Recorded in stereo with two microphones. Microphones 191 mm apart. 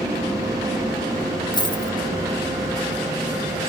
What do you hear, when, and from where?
1.5 s a dropped coin: 25° left (ahead or behind), 0.8 m